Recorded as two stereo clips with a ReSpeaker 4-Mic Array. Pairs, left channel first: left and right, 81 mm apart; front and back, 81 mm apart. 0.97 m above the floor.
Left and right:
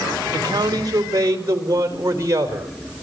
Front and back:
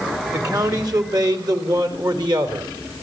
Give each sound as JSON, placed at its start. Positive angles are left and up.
{"t": 0.3, "sound": "a man speaking", "azimuth_deg": -135, "distance_m": 2.5}